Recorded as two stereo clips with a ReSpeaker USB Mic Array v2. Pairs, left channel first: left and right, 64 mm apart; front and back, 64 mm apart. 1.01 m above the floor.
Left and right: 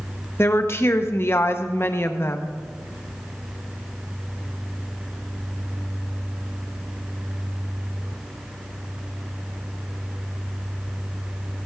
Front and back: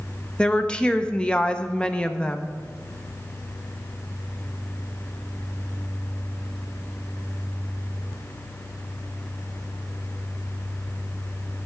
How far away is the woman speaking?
About 0.7 m.